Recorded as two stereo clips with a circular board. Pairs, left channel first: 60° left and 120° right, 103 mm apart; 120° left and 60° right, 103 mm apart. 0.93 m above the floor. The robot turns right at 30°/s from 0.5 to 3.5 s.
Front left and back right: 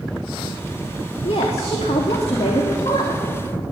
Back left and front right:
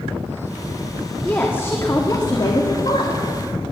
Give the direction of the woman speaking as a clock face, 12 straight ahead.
11 o'clock.